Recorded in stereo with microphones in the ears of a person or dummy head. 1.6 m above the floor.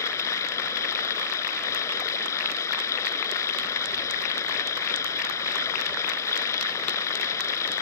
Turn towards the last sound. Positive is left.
turn(degrees=20)  # may be behind; listen again after turning